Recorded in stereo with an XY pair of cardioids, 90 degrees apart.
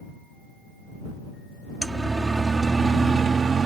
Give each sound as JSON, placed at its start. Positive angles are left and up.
{"t": 1.8, "sound": "a siren", "azimuth_deg": -20}